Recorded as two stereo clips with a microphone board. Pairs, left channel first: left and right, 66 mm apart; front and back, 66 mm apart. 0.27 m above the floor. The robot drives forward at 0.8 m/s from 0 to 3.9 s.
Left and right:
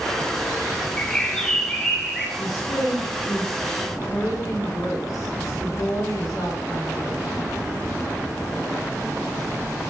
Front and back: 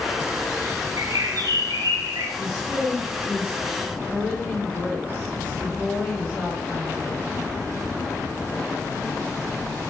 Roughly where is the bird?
Behind.